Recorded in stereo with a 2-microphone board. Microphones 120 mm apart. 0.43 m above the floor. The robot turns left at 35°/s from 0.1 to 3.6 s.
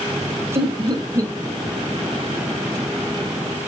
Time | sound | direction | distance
0.6 | laughter | 45° right (ahead or behind) | 2 m